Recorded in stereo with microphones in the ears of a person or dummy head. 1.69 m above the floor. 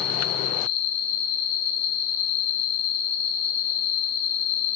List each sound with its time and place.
0.0 s an insect: 25° left (ahead or behind), 0.9 m